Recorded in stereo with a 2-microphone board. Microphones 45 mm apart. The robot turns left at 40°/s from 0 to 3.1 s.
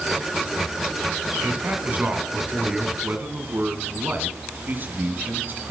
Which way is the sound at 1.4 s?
105° right.